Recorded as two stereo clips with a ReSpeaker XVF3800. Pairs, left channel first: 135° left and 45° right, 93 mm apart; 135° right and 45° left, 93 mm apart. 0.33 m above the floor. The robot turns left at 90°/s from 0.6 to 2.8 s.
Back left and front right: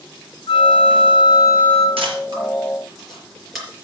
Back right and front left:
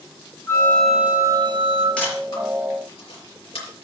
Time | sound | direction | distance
0.5 | a flute | 160° left | 1.1 m
2.0 | a camera shutter | 55° right | 5 m